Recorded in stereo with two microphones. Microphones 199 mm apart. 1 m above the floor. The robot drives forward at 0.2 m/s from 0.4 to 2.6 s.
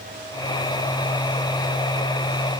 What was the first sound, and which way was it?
Only background noise.